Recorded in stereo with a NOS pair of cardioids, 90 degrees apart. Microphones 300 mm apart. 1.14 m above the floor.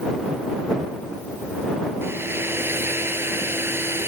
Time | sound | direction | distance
2.0 | a hair dryer | 5° right | ?